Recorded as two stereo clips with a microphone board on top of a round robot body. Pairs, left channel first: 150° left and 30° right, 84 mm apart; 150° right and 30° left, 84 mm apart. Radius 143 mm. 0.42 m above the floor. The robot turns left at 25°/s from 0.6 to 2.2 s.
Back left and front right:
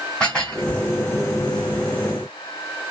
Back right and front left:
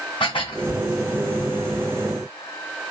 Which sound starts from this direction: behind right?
Dishes clattering, at 0.2 s.